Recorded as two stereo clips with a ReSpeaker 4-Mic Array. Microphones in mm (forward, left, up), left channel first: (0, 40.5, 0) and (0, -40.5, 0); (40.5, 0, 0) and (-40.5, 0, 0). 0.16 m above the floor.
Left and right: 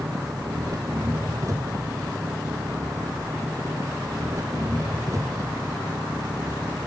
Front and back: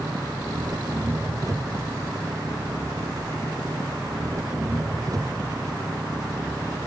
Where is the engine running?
135° right.